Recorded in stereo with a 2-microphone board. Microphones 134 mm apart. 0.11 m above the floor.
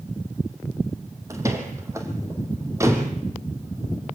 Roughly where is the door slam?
Right.